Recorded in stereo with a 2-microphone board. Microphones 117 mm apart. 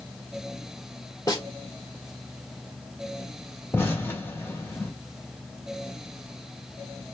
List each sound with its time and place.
1.3 s a snare drum: 30° left (ahead or behind), 1.1 m
3.7 s an explosion: 20° left (ahead or behind), 1.5 m